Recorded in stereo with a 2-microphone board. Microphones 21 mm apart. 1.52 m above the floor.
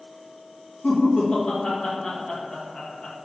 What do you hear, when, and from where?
0.8 s laughter: 45° left (ahead or behind), 1.0 m